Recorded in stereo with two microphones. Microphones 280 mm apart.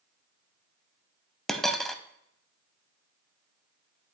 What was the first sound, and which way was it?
A dropped coin, centre (ahead or behind).